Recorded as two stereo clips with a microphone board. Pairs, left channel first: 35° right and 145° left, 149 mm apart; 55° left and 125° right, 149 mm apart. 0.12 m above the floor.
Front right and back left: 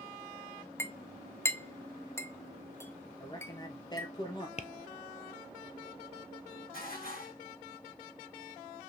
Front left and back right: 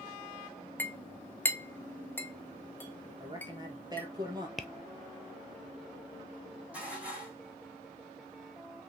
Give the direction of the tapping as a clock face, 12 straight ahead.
1 o'clock.